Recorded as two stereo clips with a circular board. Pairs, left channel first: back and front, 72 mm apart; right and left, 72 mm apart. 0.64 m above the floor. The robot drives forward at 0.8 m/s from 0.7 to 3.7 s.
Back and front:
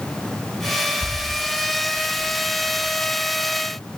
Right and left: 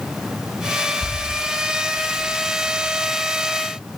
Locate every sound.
1.0 s a bird: 145° right, 1.2 m; by 3.0 s 165° right, 2.5 m